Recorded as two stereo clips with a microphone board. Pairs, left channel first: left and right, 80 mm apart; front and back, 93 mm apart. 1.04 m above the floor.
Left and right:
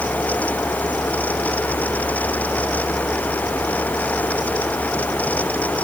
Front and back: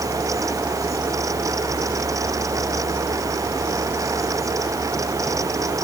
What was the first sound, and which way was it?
Only background noise.